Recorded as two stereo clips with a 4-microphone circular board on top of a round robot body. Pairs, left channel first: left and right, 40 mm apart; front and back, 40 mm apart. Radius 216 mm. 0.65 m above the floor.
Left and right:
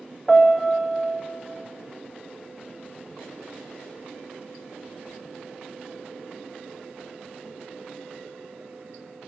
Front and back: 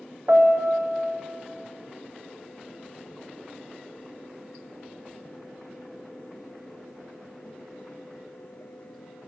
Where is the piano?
175° left, 1.6 m.